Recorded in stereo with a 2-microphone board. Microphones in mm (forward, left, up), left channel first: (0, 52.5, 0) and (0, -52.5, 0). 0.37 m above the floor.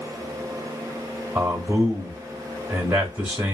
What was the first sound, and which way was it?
A man speaking, 15° right (ahead or behind).